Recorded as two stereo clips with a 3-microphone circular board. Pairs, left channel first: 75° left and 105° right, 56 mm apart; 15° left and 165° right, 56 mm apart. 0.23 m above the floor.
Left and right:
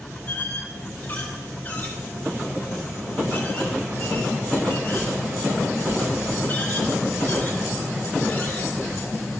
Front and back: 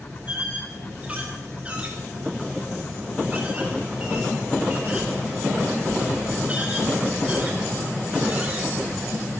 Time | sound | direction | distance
0.3 | a squeak | 130° left | 4 m